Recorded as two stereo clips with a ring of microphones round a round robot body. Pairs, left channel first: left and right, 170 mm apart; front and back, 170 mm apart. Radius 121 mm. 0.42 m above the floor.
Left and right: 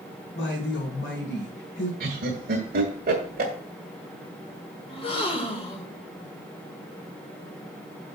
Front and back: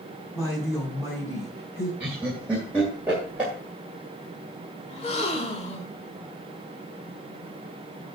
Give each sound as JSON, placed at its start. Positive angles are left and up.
{"t": 0.3, "sound": "a woman speaking", "azimuth_deg": 80, "distance_m": 4.0}
{"t": 2.0, "sound": "laughter", "azimuth_deg": -100, "distance_m": 1.7}
{"t": 4.9, "sound": "a gasp", "azimuth_deg": 45, "distance_m": 1.4}